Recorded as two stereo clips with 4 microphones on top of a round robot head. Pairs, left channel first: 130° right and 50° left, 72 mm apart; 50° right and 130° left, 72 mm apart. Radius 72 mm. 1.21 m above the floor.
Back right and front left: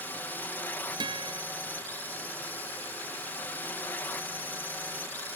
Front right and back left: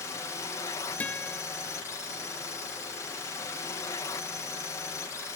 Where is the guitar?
25° left.